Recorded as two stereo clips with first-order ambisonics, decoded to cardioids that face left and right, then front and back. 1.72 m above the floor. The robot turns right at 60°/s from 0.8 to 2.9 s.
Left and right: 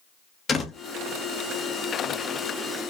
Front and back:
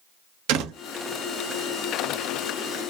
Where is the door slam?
160° left, 1.8 m.